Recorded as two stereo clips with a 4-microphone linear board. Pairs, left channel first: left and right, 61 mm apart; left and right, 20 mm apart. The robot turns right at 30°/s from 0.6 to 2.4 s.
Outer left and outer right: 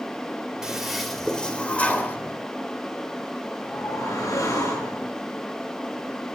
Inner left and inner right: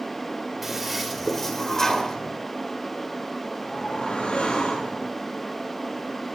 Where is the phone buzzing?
No phone buzzing in this recording.